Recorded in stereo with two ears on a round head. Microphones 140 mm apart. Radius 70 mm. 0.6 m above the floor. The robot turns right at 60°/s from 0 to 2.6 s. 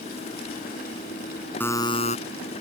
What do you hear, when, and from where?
1.6 s a buzzer: 10° left; by 2.2 s 45° left